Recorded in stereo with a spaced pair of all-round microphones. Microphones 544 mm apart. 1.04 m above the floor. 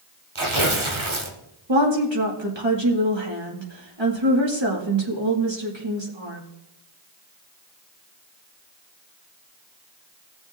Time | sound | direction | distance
0.3 | tearing paper | 60° right (ahead or behind) | 1.5 m
1.7 | a woman speaking | 50° right (ahead or behind) | 2 m